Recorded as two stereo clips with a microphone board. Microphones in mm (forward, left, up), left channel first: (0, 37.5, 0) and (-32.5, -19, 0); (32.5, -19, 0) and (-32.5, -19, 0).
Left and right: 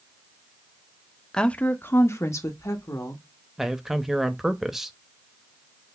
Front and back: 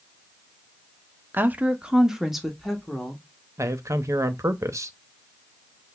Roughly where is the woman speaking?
Behind left.